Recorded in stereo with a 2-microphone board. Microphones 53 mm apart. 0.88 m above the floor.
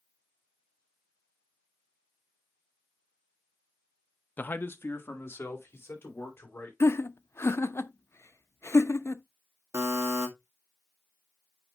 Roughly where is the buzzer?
Right.